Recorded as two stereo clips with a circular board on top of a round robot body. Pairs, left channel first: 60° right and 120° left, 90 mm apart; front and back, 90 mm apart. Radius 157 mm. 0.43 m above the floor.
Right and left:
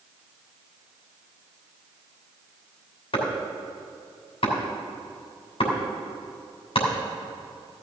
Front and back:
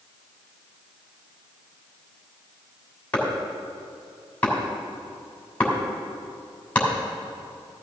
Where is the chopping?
75° right, 3 m.